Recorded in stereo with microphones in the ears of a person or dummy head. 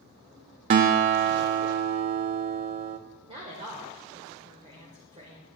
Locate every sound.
0.7 s a guitar: 35° right (ahead or behind), 0.5 m
3.3 s a woman speaking: 35° right (ahead or behind), 1.5 m